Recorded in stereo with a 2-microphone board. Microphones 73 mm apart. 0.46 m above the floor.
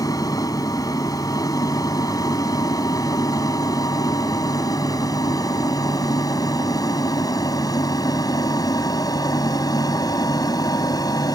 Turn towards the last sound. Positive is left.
turn(degrees=60)  # may be behind; listen again after turning